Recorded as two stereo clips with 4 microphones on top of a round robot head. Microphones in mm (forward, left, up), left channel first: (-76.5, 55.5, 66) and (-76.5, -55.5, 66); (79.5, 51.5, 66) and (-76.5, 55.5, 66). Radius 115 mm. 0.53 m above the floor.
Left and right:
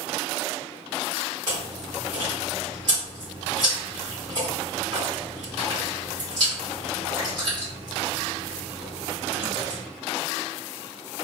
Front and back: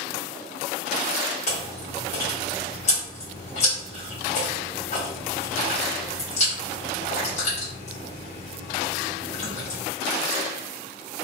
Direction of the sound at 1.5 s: 40° right.